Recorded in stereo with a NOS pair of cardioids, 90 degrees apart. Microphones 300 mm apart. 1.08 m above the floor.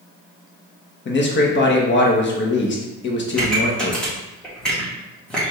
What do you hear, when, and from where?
1.1 s a man speaking: 40° left, 1.2 m
3.3 s a pop: 5° left, 1.8 m